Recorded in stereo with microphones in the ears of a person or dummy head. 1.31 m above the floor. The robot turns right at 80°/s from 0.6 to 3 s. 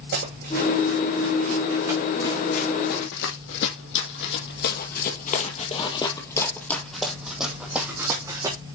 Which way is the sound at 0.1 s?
50° right (ahead or behind).